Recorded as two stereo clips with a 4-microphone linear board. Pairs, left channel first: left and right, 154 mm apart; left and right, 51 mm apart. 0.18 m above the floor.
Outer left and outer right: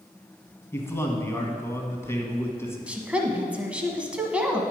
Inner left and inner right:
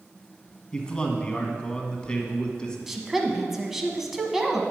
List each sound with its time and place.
0.7 s a man speaking: 15° left (ahead or behind), 1.2 m
2.9 s a woman speaking: 10° right (ahead or behind), 1.1 m